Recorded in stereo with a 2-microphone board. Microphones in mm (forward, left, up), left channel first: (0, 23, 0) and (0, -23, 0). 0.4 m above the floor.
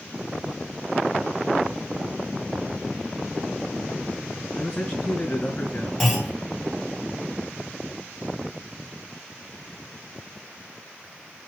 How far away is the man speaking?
About 4 m.